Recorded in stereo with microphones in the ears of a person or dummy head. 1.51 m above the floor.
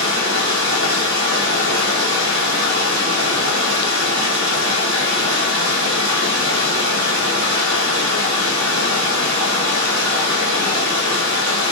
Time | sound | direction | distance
0.0 | running water | 70° right (ahead or behind) | 1.3 m